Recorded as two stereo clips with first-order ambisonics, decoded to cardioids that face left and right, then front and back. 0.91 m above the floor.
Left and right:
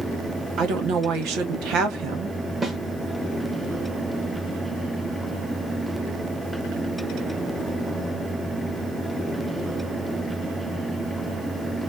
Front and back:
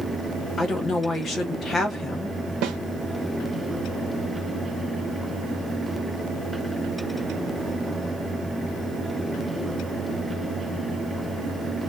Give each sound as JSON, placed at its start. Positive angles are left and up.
{"t": 0.6, "sound": "a woman speaking", "azimuth_deg": -65, "distance_m": 1.3}
{"t": 2.6, "sound": "a snare drum", "azimuth_deg": -165, "distance_m": 1.1}